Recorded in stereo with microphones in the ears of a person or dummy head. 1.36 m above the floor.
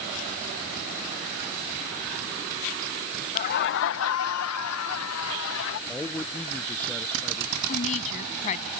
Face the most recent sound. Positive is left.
turn(degrees=40)  # may be behind; listen again after turning